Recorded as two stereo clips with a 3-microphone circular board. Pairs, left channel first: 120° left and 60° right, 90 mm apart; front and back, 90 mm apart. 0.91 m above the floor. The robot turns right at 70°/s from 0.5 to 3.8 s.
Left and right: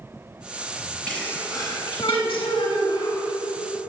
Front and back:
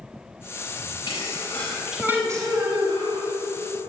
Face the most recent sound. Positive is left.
turn(degrees=-135)